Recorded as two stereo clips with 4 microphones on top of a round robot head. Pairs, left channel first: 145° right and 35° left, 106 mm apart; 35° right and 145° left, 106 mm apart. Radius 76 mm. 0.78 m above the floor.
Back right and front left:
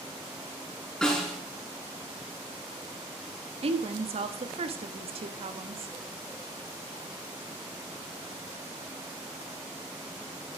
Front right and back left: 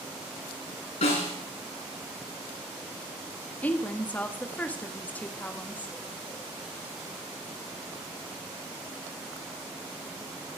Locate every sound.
1.0 s a snare drum: 60° right, 9 m
3.6 s a woman speaking: 40° left, 1.5 m